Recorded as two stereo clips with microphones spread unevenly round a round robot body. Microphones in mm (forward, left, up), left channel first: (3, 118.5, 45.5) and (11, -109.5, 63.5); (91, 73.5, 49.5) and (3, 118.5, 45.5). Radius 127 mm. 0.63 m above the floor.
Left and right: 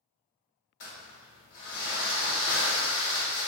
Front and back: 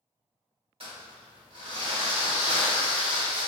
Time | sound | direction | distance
0.8 | crumpling | 130° left | 1.3 m